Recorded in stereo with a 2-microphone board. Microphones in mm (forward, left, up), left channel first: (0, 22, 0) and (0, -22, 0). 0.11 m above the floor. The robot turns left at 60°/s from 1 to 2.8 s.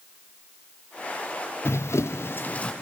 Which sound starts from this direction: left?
Running footsteps, at 1.6 s.